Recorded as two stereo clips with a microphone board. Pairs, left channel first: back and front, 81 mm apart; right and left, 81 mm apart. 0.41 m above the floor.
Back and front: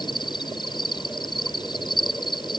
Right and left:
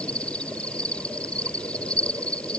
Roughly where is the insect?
Behind.